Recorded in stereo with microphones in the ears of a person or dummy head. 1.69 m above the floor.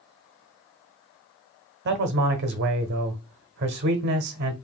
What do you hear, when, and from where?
1.9 s a man speaking: 55° right (ahead or behind), 0.8 m